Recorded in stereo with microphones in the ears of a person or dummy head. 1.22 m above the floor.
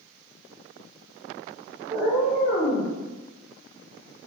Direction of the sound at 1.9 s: 15° right (ahead or behind).